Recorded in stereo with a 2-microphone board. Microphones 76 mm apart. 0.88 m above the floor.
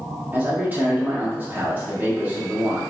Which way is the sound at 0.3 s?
25° right (ahead or behind).